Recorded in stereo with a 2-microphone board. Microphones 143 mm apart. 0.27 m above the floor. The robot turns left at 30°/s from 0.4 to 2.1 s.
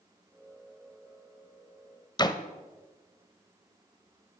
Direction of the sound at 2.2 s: 30° left (ahead or behind).